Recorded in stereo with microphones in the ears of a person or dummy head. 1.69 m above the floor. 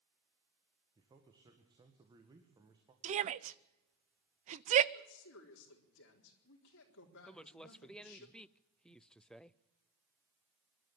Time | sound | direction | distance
0.9 | a man speaking | 20° right (ahead or behind) | 1.9 m
3.0 | a shout | 35° right (ahead or behind) | 0.7 m
4.9 | a woman speaking | 70° left (ahead or behind) | 4 m
7.3 | a woman speaking | centre (ahead or behind) | 0.5 m